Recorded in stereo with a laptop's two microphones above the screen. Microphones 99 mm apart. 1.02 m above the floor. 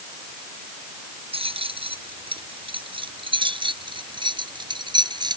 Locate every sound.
1.3 s keys jangling: 65° right (ahead or behind); by 5.4 s 45° right (ahead or behind)